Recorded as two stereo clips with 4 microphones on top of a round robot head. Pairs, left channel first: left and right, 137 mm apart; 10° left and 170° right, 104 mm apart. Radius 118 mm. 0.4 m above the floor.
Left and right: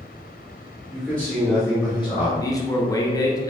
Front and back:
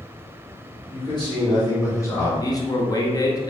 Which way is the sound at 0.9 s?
Straight ahead.